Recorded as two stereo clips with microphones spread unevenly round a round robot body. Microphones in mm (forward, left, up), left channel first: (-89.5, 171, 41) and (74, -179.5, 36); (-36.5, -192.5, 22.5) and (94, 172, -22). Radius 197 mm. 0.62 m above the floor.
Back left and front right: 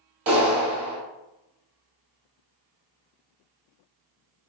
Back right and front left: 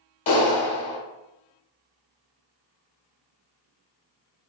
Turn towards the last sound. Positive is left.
turn(degrees=-105)